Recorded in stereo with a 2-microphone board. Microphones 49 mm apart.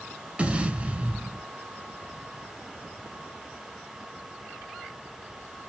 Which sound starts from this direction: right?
An explosion, at 0.4 s.